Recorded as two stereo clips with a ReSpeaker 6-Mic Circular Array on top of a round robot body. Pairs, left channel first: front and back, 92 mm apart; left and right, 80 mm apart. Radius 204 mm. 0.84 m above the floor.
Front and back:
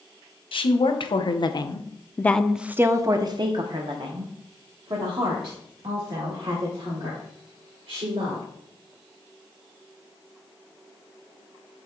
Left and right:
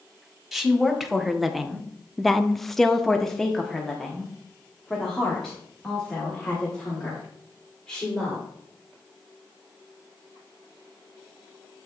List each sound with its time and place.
0.5 s a woman speaking: straight ahead, 1.3 m; by 8.4 s 175° left, 3.5 m